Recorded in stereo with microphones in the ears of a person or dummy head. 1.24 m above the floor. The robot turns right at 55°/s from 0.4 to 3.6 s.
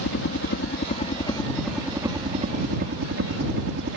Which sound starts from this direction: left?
A helicopter, at 0.0 s.